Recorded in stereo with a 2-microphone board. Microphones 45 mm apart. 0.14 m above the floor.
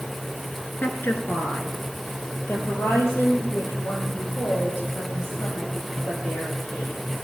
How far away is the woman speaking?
About 1.9 m.